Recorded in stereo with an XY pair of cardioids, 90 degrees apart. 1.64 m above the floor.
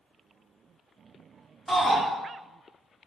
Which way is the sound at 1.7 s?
10° left.